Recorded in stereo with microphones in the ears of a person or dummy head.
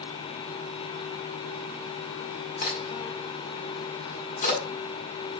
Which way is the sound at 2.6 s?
55° left (ahead or behind).